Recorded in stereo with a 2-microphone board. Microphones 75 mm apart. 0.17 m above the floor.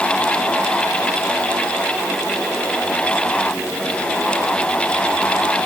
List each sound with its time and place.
Only background noise.